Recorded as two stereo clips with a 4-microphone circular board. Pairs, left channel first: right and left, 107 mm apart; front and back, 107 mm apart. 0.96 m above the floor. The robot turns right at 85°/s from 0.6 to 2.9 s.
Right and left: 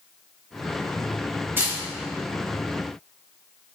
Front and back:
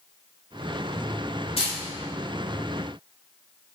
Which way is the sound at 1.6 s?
20° left.